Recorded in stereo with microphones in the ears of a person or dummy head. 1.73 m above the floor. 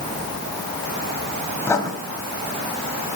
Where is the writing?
20° left (ahead or behind), 3.5 m.